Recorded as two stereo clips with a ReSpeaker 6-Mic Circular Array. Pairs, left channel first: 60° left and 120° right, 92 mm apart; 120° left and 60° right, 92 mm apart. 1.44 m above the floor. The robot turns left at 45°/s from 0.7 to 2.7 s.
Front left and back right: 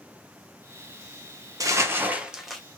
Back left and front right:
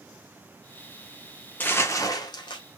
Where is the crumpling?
170° right, 0.6 m; by 2.6 s 145° left, 0.6 m.